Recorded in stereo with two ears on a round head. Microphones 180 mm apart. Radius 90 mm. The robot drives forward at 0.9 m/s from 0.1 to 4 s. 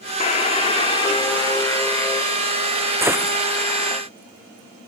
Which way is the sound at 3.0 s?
15° right (ahead or behind).